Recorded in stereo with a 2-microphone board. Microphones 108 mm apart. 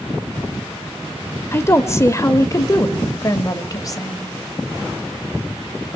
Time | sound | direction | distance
1.5 | a woman speaking | 25° left (ahead or behind) | 1.3 m